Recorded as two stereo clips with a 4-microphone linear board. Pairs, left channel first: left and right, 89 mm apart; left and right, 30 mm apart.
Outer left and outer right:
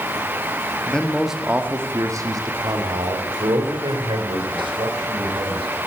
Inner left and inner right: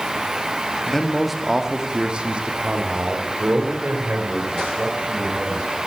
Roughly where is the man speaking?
Centre.